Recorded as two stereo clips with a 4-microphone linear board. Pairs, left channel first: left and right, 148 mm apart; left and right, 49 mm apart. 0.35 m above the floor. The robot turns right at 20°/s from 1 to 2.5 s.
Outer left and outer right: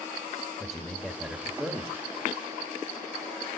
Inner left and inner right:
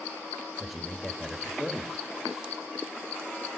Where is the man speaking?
5° right (ahead or behind), 0.9 m; by 2.0 s 15° right (ahead or behind), 0.9 m.